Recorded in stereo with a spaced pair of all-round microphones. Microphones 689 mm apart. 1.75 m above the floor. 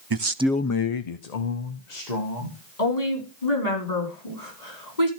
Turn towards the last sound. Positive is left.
turn(degrees=70)  # may be behind; listen again after turning